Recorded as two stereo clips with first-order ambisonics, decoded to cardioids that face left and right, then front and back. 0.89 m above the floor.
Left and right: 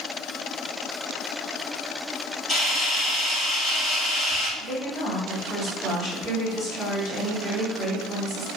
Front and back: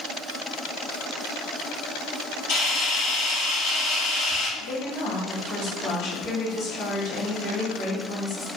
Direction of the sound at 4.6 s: 45° left.